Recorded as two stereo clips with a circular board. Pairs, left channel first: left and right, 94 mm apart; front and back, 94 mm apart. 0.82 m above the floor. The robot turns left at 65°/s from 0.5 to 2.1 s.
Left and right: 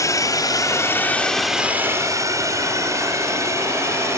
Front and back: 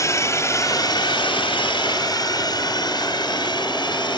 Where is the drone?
45° left; by 4.2 s 30° right.